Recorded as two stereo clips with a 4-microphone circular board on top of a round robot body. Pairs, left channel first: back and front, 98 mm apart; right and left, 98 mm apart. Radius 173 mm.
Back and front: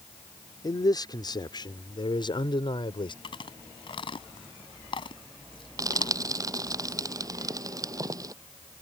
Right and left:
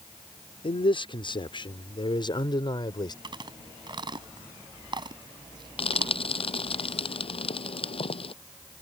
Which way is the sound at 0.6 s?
125° right.